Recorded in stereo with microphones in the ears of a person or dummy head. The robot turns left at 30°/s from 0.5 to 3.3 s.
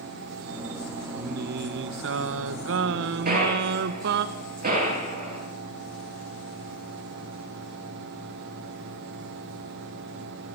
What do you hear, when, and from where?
1.1 s singing: 50° right, 1.2 m; by 4.2 s 115° right, 1.2 m
3.2 s a gunshot: 45° right (ahead or behind), 9.5 m